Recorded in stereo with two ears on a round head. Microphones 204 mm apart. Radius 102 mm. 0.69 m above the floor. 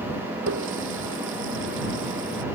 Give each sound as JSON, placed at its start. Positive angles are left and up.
{"t": 0.5, "sound": "a running tap", "side_deg": -60}